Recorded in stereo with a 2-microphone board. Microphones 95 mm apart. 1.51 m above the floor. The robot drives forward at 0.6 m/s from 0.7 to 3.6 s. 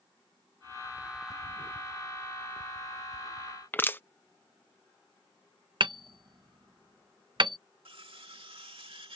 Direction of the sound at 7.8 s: 70° right (ahead or behind).